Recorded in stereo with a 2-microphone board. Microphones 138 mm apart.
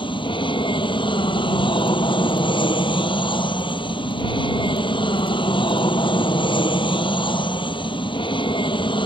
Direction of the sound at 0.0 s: 35° left (ahead or behind).